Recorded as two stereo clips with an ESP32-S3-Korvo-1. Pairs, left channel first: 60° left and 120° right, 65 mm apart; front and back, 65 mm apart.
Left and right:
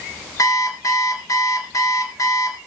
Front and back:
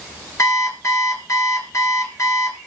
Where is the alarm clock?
35° left, 2.0 m.